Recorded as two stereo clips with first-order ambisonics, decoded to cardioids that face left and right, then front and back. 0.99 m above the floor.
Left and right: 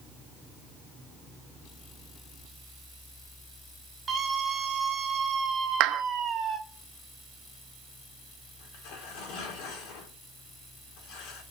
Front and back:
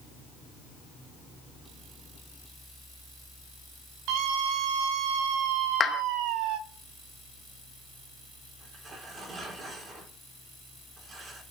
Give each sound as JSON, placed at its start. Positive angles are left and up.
{"t": 4.1, "sound": "a scream", "azimuth_deg": -165, "distance_m": 5.5}
{"t": 5.8, "sound": "a clap", "azimuth_deg": -65, "distance_m": 0.6}
{"t": 8.6, "sound": "tearing paper", "azimuth_deg": 115, "distance_m": 3.5}